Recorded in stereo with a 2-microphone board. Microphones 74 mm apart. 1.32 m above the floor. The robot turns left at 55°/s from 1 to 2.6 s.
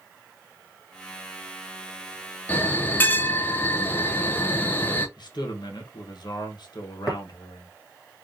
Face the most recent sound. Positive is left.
turn(degrees=0)  # may be behind; listen again after turning